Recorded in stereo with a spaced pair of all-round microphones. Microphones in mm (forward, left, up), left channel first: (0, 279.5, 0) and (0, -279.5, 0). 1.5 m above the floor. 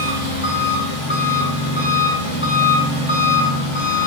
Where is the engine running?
55° left (ahead or behind), 7 m.